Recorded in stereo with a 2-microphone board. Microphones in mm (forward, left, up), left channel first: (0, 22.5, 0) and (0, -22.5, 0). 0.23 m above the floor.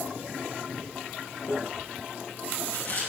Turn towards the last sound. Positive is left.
turn(degrees=50)  # may be behind; listen again after turning